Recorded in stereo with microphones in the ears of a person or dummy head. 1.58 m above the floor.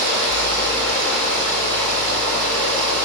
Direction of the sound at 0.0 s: 75° right (ahead or behind).